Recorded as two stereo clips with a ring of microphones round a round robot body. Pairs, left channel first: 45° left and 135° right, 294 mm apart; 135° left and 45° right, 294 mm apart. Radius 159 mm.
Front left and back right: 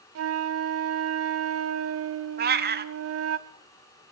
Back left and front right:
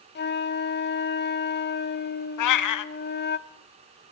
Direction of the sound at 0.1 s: 170° right.